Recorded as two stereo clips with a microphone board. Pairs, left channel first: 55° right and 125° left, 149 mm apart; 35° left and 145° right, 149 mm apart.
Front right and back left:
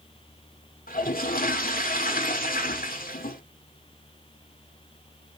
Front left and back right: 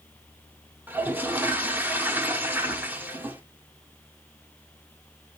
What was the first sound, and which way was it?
A toilet flushing, 70° right.